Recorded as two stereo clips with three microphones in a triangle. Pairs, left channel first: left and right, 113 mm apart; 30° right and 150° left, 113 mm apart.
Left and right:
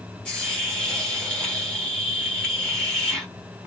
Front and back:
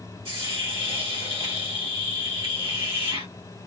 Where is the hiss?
170° left, 1.7 m.